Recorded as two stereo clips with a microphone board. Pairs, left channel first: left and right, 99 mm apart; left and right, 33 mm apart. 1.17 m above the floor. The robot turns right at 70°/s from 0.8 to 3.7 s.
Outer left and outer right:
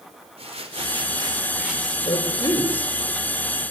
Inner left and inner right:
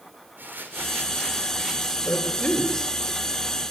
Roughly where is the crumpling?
Right.